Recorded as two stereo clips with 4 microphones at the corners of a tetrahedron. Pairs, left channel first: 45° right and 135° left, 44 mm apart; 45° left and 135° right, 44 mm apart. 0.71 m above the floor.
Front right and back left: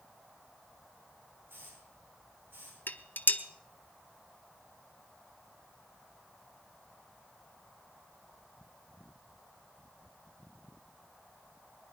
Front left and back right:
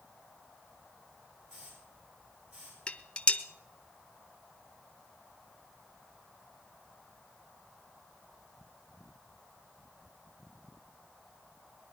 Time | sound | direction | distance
1.5 | a hiss | 175° left | 8.5 m
2.9 | dishes clattering | 15° right | 0.8 m